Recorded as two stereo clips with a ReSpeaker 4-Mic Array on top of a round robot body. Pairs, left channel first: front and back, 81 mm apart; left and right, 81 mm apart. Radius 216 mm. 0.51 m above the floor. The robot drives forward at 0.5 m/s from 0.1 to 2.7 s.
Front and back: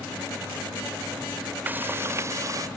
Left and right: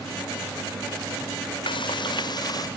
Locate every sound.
1.7 s frying: 110° left; by 2.7 s 130° left